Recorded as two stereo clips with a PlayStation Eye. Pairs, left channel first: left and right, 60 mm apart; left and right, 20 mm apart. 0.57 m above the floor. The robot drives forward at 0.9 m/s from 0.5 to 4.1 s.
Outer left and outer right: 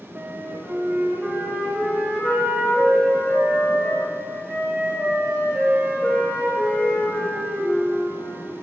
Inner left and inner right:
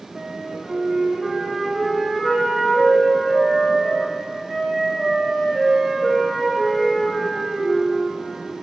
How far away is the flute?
About 0.6 m.